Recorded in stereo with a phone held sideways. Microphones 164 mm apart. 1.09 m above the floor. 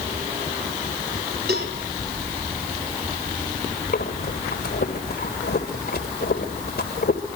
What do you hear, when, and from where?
1.5 s a cowbell: 80° right, 4.5 m
3.9 s breathing: 75° left (ahead or behind), 2.5 m